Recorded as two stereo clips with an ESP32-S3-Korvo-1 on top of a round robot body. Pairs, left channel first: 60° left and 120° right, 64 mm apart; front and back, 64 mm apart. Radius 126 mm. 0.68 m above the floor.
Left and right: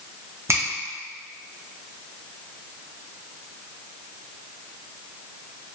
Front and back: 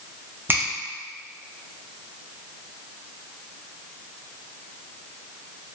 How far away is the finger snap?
About 0.9 m.